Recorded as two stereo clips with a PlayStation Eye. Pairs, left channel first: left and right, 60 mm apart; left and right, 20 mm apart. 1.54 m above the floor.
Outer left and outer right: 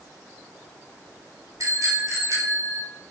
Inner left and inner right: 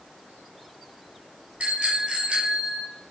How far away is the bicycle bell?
About 6 m.